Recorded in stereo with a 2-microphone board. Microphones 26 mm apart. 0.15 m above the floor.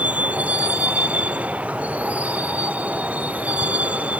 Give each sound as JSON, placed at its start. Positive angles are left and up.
{"t": 0.0, "sound": "a vehicle", "side_deg": -70}